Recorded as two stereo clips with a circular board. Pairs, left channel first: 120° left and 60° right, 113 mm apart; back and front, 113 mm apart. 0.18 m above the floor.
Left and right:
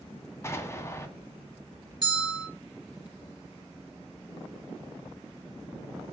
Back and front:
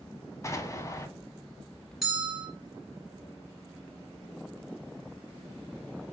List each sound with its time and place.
0.4 s an explosion: 155° left, 0.5 m
2.0 s a bell: 90° right, 2.0 m